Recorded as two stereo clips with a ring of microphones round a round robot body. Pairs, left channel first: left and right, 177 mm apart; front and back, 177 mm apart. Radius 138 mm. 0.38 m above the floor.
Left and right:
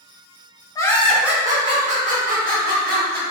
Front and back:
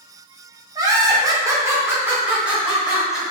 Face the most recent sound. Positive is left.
turn(degrees=-95)